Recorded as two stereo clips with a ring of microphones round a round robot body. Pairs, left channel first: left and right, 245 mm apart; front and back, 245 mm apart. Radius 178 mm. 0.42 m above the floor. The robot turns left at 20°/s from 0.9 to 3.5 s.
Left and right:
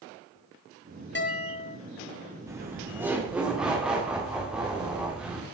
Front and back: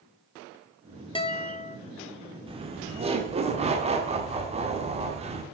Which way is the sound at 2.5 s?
150° right.